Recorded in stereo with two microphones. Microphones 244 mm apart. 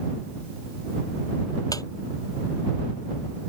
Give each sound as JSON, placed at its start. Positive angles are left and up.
{"t": 1.7, "sound": "a squeak", "side_deg": 15}